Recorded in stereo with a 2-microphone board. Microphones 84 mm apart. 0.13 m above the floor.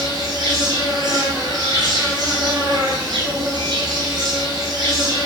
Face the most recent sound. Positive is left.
turn(degrees=-50)  # may be behind; listen again after turning